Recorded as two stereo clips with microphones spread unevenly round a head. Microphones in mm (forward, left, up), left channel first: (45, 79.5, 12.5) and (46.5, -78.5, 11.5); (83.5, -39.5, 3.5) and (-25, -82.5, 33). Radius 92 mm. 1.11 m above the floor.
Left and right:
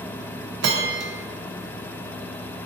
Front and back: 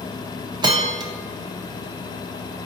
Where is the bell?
115° right, 0.5 m.